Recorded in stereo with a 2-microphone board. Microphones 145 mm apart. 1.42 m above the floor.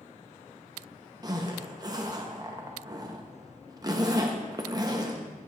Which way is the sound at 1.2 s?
25° right (ahead or behind).